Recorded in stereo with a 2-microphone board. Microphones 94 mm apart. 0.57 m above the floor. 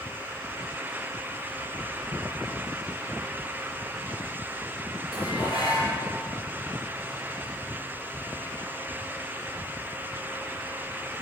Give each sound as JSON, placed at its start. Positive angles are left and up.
{"t": 5.1, "sound": "dishes clattering", "side_deg": -85, "distance_m": 6.5}